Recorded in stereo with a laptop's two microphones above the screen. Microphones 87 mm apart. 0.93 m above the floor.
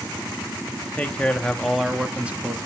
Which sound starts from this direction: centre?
A man speaking, at 0.9 s.